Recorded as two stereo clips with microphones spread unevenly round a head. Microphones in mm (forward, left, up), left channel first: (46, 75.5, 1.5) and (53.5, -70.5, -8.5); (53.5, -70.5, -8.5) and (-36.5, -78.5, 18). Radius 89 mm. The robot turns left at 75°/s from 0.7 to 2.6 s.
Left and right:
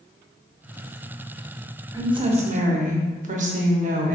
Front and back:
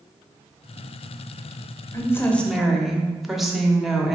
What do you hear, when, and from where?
1.9 s a woman speaking: 25° right, 0.8 m; by 4.2 s 75° right, 0.8 m